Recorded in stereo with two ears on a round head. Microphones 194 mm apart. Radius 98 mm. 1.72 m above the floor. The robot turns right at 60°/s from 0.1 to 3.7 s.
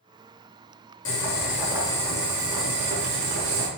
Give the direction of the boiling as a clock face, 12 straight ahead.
8 o'clock.